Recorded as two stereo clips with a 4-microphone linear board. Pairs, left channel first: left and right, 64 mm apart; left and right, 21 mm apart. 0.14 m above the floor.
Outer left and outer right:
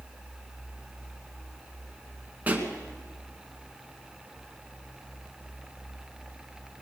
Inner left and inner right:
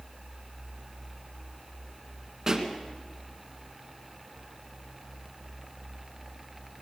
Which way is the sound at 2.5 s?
25° right (ahead or behind).